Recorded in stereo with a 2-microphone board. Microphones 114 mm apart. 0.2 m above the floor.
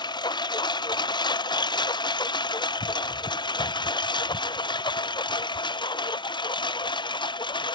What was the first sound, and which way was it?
A lawn mower, 40° left (ahead or behind).